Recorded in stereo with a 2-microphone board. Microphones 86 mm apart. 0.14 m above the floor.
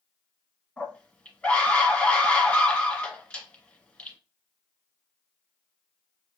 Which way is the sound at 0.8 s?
15° left (ahead or behind).